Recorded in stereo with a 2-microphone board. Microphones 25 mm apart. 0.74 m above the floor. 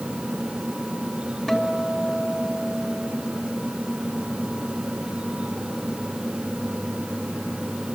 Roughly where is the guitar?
Centre.